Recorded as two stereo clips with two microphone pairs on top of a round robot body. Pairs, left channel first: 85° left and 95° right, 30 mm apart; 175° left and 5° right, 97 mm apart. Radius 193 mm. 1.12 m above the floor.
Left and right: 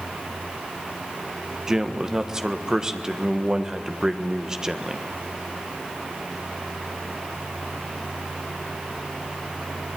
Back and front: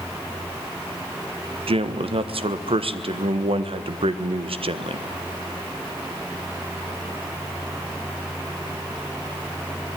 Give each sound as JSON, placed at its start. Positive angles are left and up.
{"t": 1.7, "sound": "a man speaking", "azimuth_deg": -20, "distance_m": 1.5}